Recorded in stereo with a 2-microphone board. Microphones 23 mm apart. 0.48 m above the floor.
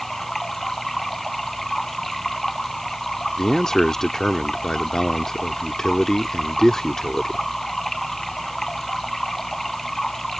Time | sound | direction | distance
0.0 | running water | 15° left (ahead or behind) | ?
3.4 | a man speaking | 20° left (ahead or behind) | ?